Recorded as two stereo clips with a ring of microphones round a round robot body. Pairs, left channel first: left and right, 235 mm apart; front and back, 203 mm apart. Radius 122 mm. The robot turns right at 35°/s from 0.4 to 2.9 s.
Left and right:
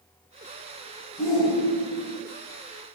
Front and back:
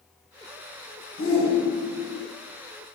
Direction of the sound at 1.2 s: 15° left.